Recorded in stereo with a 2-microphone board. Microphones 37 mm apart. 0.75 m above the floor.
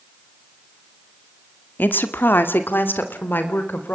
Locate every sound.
1.8 s a woman speaking: 60° left (ahead or behind), 1.9 m